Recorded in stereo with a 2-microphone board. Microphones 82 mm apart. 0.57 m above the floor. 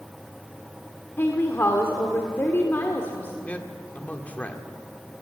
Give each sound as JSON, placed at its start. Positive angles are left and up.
{"t": 1.2, "sound": "a woman speaking", "side_deg": 30, "distance_m": 1.6}
{"t": 3.5, "sound": "a man speaking", "side_deg": 20, "distance_m": 1.7}